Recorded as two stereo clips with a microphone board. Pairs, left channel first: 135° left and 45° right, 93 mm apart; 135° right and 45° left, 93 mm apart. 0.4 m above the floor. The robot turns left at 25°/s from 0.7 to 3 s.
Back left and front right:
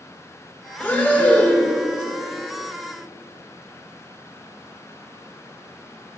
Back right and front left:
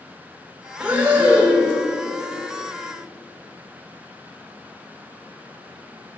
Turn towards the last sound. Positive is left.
turn(degrees=45)